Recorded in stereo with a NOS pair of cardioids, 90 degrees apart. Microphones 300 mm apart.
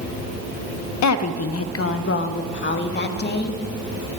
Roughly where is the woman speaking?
Ahead left.